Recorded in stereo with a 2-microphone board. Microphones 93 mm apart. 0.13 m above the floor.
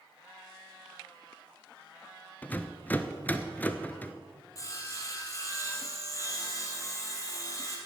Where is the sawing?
35° left (ahead or behind), 2.5 m.